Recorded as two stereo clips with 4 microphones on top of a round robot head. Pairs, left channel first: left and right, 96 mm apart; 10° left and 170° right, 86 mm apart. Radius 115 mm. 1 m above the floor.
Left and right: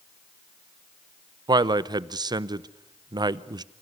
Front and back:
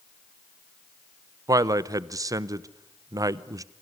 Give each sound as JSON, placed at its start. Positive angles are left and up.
{"t": 1.5, "sound": "a man speaking", "azimuth_deg": -125, "distance_m": 0.8}